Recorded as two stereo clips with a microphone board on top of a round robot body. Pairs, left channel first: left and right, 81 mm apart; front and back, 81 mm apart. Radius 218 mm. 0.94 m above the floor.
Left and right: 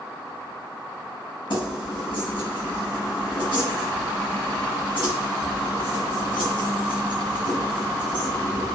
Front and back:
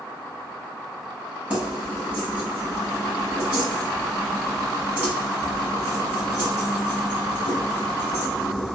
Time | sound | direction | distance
1.5 | keys jangling | 110° left | 1.2 m